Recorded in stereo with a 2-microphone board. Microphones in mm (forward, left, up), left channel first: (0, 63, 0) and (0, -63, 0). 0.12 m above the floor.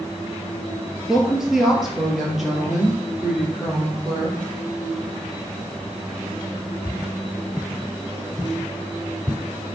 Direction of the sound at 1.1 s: 5° right (ahead or behind).